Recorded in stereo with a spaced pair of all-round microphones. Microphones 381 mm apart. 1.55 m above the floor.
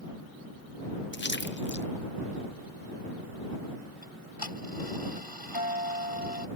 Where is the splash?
30° left (ahead or behind).